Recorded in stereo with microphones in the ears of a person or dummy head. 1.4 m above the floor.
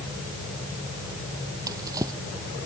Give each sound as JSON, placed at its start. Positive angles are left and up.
{"t": 1.7, "sound": "a drawer", "side_deg": -20}